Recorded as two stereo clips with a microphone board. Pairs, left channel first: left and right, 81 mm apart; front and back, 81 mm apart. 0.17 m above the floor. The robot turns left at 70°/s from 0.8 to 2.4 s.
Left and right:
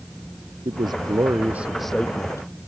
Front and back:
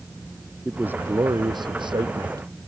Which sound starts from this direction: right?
A man speaking, at 0.7 s.